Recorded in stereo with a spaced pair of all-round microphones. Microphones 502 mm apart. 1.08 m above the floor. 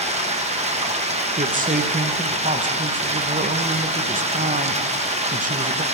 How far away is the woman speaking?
About 1.0 m.